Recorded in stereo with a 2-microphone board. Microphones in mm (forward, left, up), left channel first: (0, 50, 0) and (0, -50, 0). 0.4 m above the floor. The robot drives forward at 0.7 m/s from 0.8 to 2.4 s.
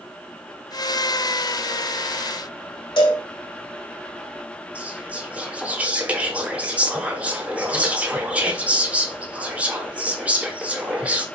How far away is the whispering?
About 0.8 m.